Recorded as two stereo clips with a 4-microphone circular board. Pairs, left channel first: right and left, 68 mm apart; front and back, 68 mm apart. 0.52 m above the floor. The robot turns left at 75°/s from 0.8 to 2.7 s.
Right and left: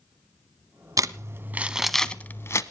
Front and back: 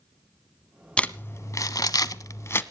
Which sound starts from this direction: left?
Crumpling, at 1.0 s.